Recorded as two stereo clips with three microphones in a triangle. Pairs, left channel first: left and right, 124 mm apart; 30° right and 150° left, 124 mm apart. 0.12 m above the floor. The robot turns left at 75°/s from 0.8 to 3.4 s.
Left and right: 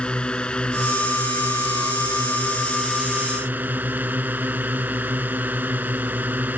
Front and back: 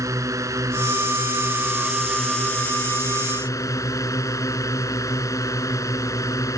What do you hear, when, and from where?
0.0 s a drone: 160° left; by 6.6 s 35° right